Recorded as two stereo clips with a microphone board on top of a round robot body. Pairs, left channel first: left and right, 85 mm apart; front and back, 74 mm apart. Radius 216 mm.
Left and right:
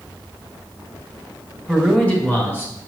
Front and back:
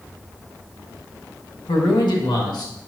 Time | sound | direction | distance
1.7 | a man speaking | 5° left | 1.6 m